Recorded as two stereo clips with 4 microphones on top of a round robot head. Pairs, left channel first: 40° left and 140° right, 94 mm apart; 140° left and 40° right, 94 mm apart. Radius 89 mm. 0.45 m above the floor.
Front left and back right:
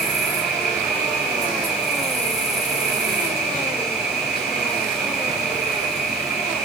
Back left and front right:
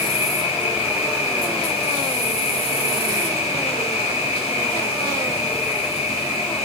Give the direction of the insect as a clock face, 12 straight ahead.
7 o'clock.